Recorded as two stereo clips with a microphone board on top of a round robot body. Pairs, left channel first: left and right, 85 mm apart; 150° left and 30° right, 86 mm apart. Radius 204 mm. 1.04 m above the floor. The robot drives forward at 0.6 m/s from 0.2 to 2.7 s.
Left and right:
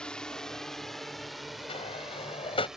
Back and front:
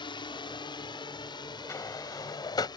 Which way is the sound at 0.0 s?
170° left.